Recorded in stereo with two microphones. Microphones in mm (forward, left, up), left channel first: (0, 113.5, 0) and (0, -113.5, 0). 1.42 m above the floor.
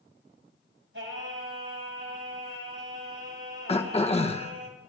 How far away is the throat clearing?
About 0.9 m.